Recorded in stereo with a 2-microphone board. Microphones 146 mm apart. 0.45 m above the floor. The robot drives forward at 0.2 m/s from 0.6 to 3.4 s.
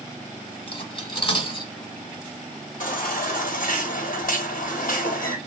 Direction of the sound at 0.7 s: 35° left (ahead or behind).